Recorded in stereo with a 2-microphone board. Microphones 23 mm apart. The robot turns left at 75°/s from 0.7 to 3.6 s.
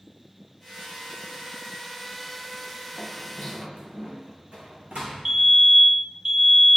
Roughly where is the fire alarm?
Centre.